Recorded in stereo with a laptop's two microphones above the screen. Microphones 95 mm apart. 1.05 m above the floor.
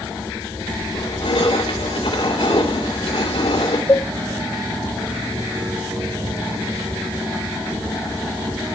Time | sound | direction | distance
0.9 | crushing | 75° left (ahead or behind) | 3.5 m
3.9 | a cowbell | 35° left (ahead or behind) | 2.5 m